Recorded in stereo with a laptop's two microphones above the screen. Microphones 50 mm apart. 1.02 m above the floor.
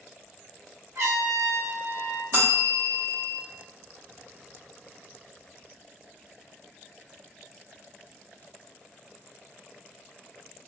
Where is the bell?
60° right (ahead or behind), 0.9 m.